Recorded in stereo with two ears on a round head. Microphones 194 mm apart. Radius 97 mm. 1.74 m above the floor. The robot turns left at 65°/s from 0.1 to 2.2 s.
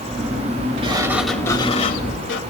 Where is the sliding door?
150° right, 1.6 m; by 2.4 s 120° left, 1.6 m.